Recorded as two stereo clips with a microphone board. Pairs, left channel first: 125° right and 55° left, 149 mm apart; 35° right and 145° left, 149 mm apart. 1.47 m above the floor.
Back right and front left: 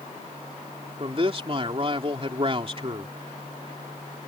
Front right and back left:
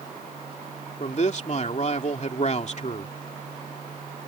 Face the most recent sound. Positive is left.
turn(degrees=5)